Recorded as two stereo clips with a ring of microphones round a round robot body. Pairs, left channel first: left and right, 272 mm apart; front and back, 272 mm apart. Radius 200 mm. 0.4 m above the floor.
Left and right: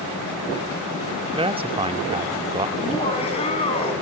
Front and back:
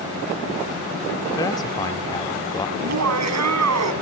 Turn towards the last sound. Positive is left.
turn(degrees=165)